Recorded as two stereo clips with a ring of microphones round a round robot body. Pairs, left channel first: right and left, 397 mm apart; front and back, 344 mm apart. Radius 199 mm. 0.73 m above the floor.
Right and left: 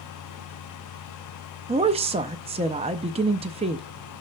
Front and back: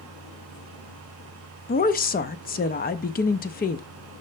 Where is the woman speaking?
30° left, 0.5 m.